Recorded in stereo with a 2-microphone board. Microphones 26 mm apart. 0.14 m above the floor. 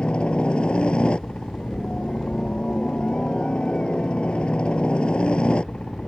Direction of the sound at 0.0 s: 45° left (ahead or behind).